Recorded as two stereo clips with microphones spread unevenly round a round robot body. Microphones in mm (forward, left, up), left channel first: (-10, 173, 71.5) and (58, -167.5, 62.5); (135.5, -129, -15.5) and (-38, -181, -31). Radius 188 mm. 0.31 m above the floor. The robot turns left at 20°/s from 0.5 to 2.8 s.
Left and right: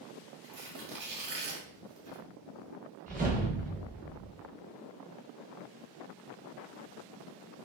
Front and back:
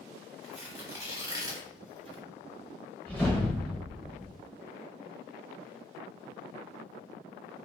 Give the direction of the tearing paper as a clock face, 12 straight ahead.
3 o'clock.